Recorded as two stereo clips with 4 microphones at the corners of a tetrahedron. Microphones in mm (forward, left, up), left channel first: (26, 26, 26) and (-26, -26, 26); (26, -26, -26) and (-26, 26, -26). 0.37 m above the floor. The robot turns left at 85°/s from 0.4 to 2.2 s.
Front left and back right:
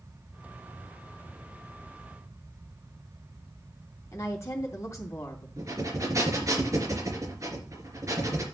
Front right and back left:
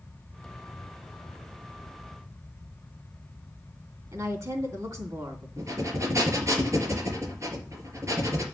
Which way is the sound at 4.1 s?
95° left.